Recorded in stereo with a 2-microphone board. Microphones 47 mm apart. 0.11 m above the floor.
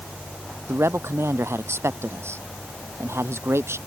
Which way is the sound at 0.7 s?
65° right (ahead or behind).